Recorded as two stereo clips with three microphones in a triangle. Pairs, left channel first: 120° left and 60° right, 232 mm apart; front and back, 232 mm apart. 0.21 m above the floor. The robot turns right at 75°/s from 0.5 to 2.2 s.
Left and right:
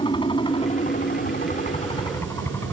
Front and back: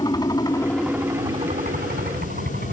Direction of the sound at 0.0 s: 65° left.